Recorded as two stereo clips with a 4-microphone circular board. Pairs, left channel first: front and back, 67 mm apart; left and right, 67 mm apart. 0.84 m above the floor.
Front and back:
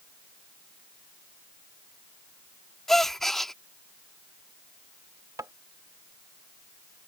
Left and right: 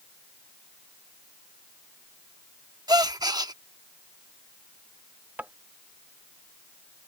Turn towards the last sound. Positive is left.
turn(degrees=-155)